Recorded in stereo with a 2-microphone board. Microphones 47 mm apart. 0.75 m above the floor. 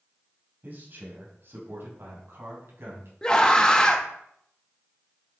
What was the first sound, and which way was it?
A man speaking, 45° right (ahead or behind).